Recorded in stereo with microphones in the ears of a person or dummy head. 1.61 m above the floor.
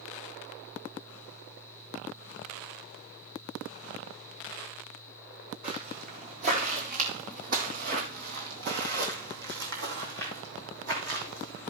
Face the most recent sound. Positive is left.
turn(degrees=-60)  # may be behind; listen again after turning